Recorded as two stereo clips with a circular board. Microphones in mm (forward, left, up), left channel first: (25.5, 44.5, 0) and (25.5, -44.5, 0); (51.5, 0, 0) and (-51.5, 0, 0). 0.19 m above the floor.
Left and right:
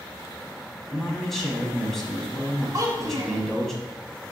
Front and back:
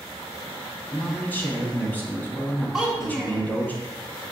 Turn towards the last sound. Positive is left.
turn(degrees=-100)